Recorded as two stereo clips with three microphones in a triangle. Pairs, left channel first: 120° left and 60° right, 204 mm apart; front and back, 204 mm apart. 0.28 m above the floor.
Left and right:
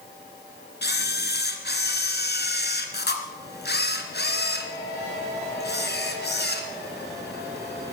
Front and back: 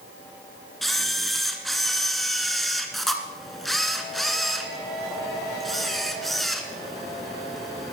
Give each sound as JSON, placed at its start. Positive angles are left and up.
{"t": 0.8, "sound": "a camera shutter", "azimuth_deg": 90, "distance_m": 1.7}